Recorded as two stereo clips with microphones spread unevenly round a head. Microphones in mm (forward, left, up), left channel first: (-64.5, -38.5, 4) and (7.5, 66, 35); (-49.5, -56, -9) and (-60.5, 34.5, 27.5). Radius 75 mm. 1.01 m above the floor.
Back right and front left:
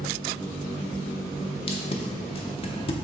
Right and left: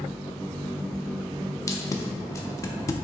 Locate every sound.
1.7 s tape being pulled: 145° right, 0.5 m